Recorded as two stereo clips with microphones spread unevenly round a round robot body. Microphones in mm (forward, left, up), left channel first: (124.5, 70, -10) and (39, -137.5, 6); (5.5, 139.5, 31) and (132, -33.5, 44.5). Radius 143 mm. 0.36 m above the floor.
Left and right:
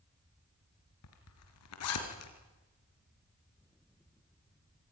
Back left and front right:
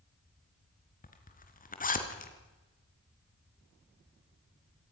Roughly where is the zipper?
Left.